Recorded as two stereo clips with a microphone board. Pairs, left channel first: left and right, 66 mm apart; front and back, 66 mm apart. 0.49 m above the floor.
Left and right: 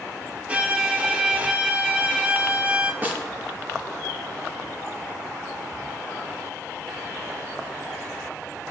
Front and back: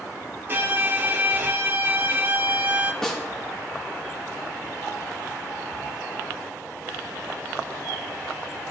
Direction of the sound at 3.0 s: 70° right.